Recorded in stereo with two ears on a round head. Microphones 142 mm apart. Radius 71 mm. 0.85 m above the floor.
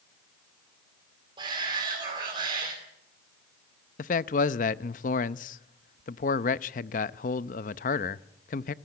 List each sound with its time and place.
1.4 s a shout: 30° right (ahead or behind), 3 m
4.0 s a man speaking: 50° left (ahead or behind), 0.6 m